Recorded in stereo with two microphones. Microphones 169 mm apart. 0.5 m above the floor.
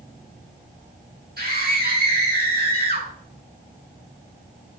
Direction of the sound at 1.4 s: 70° right (ahead or behind).